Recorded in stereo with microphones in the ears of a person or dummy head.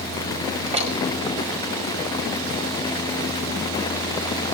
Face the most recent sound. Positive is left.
turn(degrees=-30)  # may be behind; listen again after turning